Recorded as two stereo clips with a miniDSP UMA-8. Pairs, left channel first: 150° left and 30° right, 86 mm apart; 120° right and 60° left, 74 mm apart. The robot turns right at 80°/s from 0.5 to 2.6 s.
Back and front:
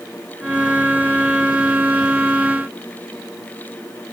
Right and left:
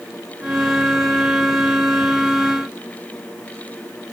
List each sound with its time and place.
Only background noise.